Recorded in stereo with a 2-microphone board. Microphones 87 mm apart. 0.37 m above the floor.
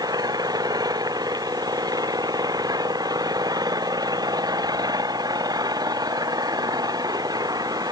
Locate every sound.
0.0 s an engine running: 45° right (ahead or behind)